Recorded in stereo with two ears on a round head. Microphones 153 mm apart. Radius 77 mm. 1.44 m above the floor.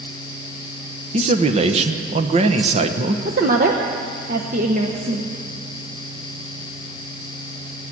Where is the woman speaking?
45° right (ahead or behind), 0.9 m.